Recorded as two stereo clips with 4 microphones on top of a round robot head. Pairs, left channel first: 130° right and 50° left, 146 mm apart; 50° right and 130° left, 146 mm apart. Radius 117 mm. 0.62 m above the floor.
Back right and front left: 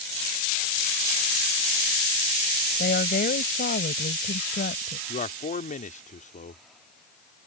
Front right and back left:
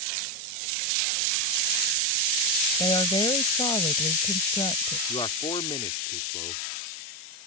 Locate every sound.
2.8 s a woman speaking: 110° right
5.1 s a man speaking: 105° right